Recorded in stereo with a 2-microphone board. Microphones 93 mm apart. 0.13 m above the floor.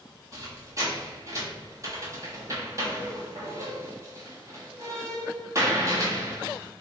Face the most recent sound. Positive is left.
turn(degrees=-35)  # may be behind; listen again after turning